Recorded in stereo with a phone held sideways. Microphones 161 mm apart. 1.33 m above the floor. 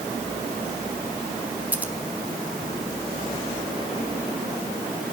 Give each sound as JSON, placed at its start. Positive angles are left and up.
{"t": 1.7, "sound": "scissors", "side_deg": -10, "distance_m": 2.0}